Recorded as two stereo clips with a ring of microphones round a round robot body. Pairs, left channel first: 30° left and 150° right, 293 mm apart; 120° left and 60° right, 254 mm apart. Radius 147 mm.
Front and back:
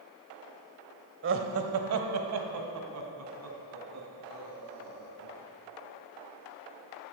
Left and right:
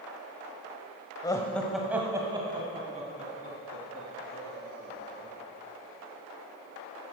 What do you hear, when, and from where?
1.2 s laughter: 170° right, 1.1 m; by 5.3 s 115° right, 4 m